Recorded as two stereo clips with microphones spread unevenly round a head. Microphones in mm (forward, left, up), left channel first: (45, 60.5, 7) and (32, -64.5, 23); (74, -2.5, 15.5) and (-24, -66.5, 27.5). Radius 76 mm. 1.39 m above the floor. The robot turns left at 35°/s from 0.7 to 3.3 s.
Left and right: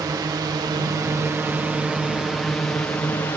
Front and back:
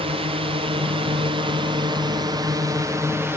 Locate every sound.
0.0 s a drone: 155° right; by 3.4 s 150° left